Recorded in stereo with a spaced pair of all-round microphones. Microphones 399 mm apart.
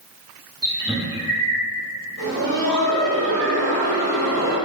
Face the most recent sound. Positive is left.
turn(degrees=-40)  # may be behind; listen again after turning